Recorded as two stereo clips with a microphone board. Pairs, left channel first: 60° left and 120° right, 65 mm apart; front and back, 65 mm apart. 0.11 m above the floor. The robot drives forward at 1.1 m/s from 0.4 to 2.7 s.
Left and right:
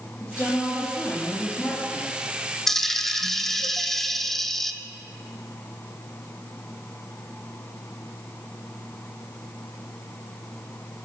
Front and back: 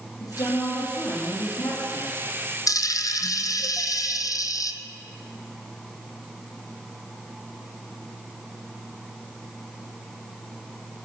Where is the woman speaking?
5° left, 3.5 m; by 2.2 s 20° left, 1.9 m.